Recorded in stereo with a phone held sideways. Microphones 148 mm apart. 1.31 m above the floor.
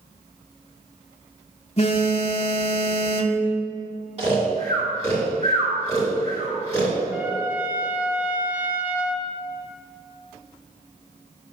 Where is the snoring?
50° right (ahead or behind), 2.5 m.